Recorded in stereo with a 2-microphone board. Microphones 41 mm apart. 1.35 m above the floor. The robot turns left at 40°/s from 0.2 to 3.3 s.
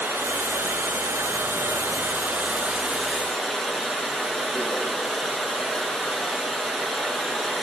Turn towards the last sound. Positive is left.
turn(degrees=170)